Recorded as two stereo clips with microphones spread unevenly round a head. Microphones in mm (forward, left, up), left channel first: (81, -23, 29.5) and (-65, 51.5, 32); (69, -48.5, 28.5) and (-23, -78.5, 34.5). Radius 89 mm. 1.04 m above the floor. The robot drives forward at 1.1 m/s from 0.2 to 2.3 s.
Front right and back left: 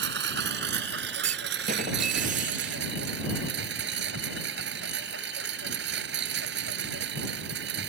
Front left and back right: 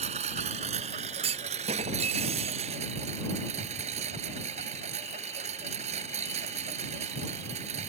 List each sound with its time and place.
0.0 s a lawn mower: straight behind
1.2 s a clunk: 155° right; by 2.9 s 160° right